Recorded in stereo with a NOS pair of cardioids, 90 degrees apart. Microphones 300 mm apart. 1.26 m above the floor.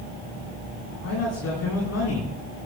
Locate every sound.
1.0 s a man speaking: 55° left, 10 m